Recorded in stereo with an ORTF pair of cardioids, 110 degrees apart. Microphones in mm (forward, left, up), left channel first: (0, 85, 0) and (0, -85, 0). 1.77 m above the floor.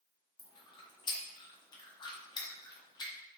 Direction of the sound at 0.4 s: 25° left.